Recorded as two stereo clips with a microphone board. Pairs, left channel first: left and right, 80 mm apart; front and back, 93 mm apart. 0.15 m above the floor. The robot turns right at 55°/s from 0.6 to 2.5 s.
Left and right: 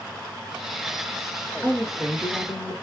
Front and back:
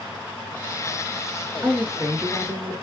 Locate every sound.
1.6 s a woman speaking: 170° left, 1.6 m; by 2.7 s 140° right, 1.6 m